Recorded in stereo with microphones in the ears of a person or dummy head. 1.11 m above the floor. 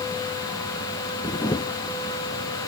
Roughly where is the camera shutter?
Left.